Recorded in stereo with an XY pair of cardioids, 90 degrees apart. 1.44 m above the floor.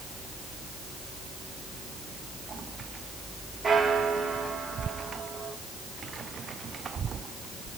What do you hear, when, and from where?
3.6 s a bell: 40° right, 2 m